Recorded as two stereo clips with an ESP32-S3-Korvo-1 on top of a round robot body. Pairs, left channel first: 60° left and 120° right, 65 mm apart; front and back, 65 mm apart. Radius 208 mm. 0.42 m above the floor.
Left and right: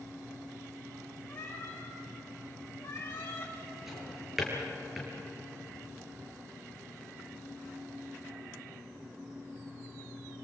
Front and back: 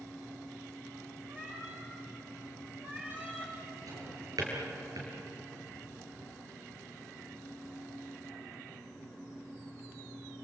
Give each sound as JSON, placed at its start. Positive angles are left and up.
{"t": 1.3, "sound": "a cat meowing", "azimuth_deg": 120, "distance_m": 6.0}
{"t": 3.9, "sound": "a drawer", "azimuth_deg": 155, "distance_m": 5.0}